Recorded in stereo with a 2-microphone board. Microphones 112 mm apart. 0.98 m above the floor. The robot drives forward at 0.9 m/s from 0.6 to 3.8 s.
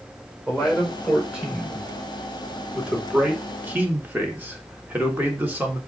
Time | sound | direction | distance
0.5 | a man speaking | 5° right (ahead or behind) | 4.5 m